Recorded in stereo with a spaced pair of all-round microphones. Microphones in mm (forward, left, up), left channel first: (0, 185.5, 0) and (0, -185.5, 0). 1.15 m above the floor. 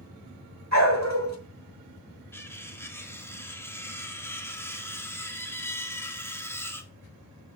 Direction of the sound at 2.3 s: 5° left (ahead or behind).